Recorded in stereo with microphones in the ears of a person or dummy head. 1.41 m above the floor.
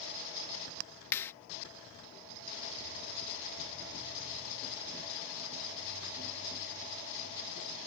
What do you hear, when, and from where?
1.1 s a clap: 15° left (ahead or behind)